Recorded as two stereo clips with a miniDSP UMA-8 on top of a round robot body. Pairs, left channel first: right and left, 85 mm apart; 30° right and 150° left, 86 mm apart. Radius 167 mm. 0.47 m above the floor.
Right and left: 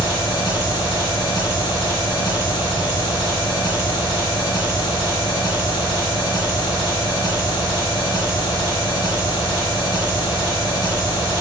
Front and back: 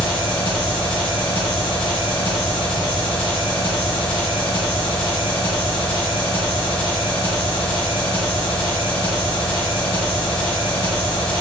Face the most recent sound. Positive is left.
turn(degrees=-45)